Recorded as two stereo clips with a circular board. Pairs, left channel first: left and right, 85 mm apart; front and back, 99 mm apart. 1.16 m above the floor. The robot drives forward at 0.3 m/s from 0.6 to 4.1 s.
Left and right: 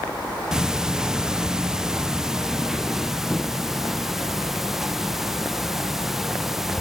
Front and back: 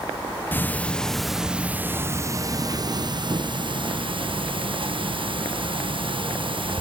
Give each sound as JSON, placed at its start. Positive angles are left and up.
{"t": 0.5, "sound": "ticking", "azimuth_deg": -20}